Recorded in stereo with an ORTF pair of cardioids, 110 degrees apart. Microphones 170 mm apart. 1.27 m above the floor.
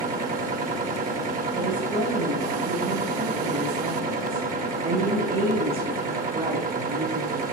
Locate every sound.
0.0 s a machine running: 55° right, 1.2 m
1.6 s a woman speaking: 65° right, 2 m